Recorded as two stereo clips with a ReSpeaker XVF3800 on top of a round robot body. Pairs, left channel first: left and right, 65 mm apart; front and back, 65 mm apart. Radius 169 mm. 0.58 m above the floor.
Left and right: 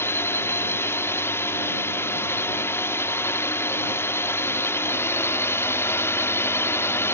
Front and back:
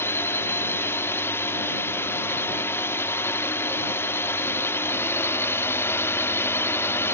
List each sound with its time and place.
0.0 s a drone: 45° left